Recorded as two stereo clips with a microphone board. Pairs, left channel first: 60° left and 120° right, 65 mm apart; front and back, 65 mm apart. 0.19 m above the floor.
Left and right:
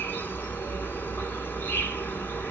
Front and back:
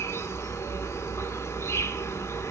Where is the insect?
15° left, 1.1 m.